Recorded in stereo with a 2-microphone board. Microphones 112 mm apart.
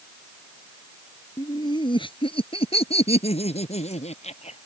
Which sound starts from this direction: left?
Laughter, at 1.4 s.